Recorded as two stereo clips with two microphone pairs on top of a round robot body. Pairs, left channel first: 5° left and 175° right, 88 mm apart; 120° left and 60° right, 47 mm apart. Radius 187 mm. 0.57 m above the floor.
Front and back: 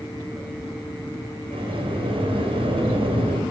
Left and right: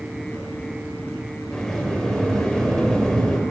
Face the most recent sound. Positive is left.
turn(degrees=-165)